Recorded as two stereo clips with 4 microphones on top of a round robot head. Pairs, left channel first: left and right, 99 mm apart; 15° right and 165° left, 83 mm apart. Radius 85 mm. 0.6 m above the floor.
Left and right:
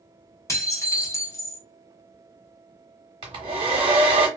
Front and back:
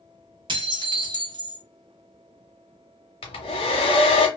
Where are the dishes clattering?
150° left, 0.8 m.